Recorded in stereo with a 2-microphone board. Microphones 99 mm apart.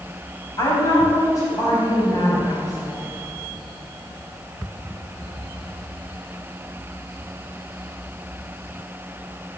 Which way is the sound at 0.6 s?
40° left (ahead or behind).